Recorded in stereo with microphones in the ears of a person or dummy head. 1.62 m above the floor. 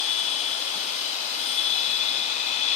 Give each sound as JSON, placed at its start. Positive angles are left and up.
{"t": 0.0, "sound": "a machine running", "side_deg": 35}